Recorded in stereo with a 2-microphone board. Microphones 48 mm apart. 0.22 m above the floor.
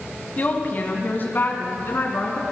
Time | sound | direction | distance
0.4 | a woman speaking | 35° left (ahead or behind) | 1.5 m